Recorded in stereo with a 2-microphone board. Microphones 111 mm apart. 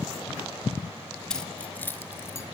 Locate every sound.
1.3 s keys jangling: 5° left (ahead or behind), 2.5 m; by 2.4 s 25° left (ahead or behind), 3 m